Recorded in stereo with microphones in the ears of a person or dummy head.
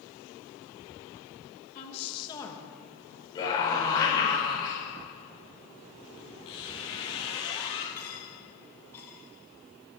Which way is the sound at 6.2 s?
20° left (ahead or behind).